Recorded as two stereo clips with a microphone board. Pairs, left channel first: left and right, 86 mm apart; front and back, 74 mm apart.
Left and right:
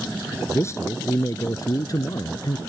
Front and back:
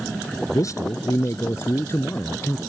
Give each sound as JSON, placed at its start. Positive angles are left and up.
{"t": 0.5, "sound": "a man speaking", "azimuth_deg": 35}